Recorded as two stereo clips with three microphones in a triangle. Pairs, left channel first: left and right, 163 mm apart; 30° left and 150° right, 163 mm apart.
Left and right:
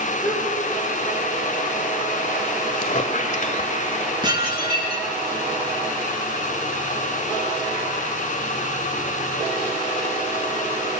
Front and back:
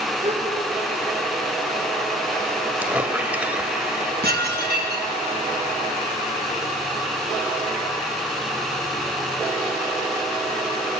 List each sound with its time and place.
0.2 s a gasp: 160° left, 5.5 m
2.8 s a squeak: 130° left, 1.7 m
4.2 s dishes clattering: 150° right, 5 m